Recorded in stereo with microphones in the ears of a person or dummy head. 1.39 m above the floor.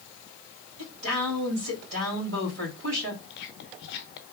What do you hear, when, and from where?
0.8 s a woman speaking: 80° right, 3.5 m
3.3 s whispering: 65° left (ahead or behind), 0.8 m